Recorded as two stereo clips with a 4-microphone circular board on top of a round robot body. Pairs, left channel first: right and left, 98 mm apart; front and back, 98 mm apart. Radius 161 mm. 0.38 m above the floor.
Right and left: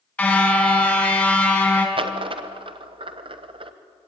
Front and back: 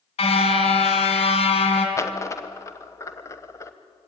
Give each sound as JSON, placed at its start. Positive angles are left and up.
{"t": 0.2, "sound": "a car horn", "azimuth_deg": -15, "distance_m": 2.5}
{"t": 2.0, "sound": "a dropped coin", "azimuth_deg": 60, "distance_m": 1.2}